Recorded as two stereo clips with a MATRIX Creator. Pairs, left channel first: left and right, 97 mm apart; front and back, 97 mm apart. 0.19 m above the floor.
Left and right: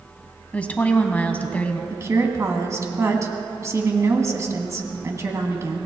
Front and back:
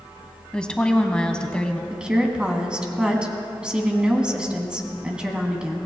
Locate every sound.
0.5 s a woman speaking: 55° left, 1.0 m
1.9 s a woman speaking: 110° right, 1.6 m